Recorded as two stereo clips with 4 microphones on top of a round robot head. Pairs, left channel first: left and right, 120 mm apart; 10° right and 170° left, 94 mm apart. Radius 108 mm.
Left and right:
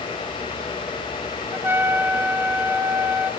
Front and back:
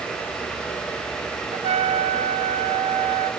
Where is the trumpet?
165° right, 0.8 m.